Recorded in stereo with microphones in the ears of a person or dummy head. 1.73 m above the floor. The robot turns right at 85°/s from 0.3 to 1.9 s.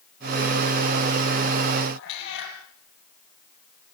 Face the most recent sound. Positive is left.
turn(degrees=60)  # may be behind; listen again after turning